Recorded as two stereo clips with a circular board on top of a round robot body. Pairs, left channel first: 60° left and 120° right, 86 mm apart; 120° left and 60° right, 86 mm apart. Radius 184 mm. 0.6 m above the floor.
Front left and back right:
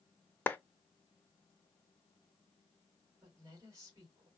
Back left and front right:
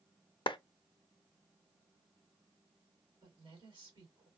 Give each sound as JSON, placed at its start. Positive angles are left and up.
{"t": 0.5, "sound": "a clap", "azimuth_deg": 125, "distance_m": 0.6}
{"t": 3.2, "sound": "a woman speaking", "azimuth_deg": -70, "distance_m": 2.5}